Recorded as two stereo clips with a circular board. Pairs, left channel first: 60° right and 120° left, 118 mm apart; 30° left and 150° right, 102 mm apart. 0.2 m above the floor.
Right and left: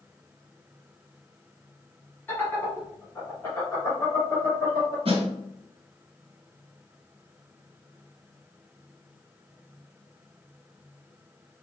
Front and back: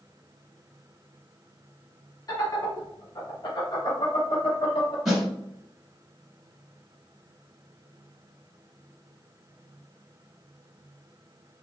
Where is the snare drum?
125° left, 1.6 m.